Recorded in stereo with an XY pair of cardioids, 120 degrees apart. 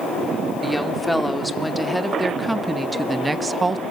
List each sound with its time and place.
0.6 s a woman speaking: 5° left, 3 m; by 3.8 s 25° right, 1.2 m